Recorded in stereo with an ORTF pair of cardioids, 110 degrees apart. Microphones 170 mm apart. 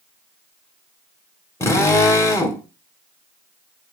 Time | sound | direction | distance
1.6 | a drill | 15° left | 1.9 m